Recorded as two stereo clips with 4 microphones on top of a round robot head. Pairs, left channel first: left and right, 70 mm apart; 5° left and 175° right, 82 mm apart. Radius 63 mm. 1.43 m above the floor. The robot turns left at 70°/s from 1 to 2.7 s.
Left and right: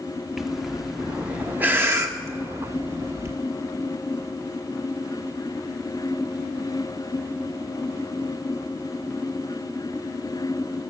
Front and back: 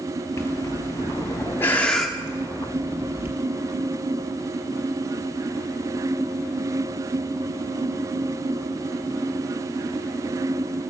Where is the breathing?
5° right, 1.0 m; by 3.4 s 125° right, 1.0 m.